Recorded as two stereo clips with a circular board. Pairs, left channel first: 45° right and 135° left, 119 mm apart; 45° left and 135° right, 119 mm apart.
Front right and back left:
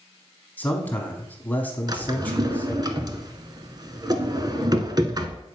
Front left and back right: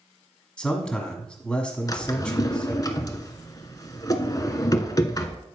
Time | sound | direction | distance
0.6 | a man speaking | 15° right | 1.3 m
1.9 | a drawer | 95° left | 0.7 m